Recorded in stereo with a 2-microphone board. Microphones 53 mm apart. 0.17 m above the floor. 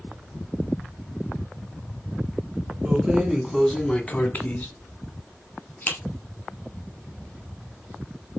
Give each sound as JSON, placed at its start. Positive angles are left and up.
{"t": 2.9, "sound": "keys jangling", "side_deg": -15, "distance_m": 1.6}